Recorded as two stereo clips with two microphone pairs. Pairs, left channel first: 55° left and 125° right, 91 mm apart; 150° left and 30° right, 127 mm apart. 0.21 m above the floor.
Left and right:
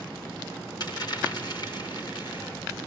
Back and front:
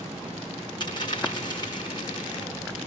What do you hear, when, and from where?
0.8 s a dropped coin: 95° left, 7 m